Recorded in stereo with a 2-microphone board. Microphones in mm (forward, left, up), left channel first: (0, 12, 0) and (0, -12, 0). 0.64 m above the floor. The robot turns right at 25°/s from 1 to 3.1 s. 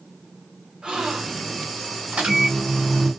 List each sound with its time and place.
0.8 s a gasp: 40° right (ahead or behind), 1.6 m; by 1.6 s 45° right (ahead or behind), 1.6 m
2.1 s a microwave: 70° right (ahead or behind), 2.5 m